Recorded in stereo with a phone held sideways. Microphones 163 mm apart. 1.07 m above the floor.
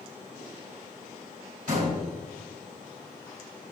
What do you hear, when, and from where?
1.7 s a door slam: 65° right (ahead or behind), 5 m